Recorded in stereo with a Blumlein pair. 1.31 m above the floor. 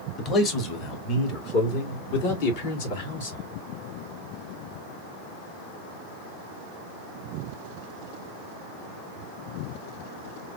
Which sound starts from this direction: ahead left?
A man speaking, at 0.2 s.